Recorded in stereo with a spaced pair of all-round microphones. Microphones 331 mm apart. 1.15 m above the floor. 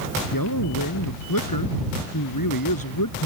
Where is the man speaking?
80° left.